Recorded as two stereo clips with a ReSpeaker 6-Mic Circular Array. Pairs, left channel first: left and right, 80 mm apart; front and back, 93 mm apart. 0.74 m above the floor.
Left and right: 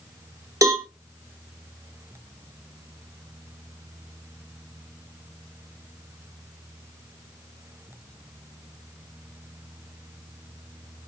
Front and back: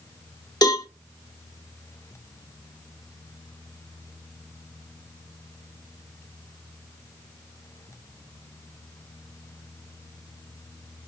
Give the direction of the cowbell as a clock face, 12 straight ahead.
1 o'clock.